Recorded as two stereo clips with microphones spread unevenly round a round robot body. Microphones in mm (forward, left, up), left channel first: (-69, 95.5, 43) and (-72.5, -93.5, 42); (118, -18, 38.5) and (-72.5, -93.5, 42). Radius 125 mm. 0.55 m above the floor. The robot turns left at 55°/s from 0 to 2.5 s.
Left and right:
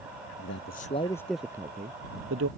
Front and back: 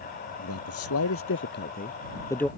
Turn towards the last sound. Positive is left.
turn(degrees=-65)